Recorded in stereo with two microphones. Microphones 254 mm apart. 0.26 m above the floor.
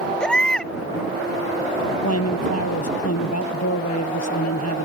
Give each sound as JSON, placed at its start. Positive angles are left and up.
{"t": 0.2, "sound": "a baby crying", "side_deg": 5}
{"t": 2.0, "sound": "a man speaking", "side_deg": 80}